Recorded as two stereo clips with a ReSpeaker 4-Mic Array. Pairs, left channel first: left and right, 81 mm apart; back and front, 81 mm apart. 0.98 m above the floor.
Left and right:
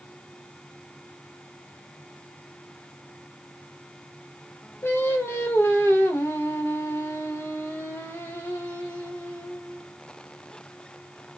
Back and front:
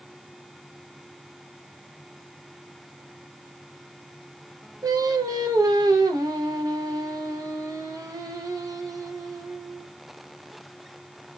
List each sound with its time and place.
4.8 s singing: 35° left, 0.7 m